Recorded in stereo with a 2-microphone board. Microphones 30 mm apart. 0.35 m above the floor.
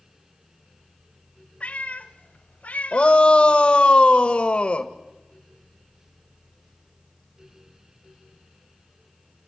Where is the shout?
40° left (ahead or behind), 1.6 m.